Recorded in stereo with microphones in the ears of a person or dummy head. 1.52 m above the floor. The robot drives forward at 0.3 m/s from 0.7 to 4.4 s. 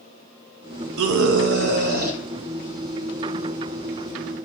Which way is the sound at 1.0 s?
65° right (ahead or behind).